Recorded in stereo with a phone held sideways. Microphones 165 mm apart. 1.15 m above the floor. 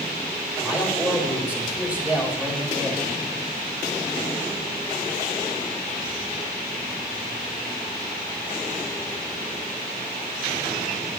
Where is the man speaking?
10° right (ahead or behind), 5 m.